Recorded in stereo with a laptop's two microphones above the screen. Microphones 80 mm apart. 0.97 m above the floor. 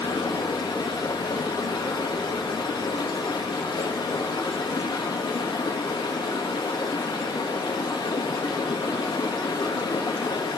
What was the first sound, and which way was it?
Running water, 70° left (ahead or behind).